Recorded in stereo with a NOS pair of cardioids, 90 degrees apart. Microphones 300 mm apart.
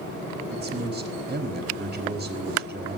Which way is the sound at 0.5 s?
35° right.